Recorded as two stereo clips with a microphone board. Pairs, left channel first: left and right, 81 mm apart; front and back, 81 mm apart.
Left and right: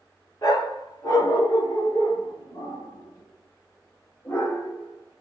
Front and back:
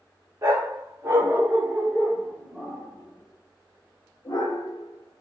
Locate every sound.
0.4 s a dog barking: 130° left, 1.6 m; by 5.2 s 25° left, 1.7 m